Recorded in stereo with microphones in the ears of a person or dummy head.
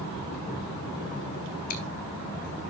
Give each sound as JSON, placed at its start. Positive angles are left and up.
{"t": 1.7, "sound": "chewing", "side_deg": 45, "distance_m": 1.7}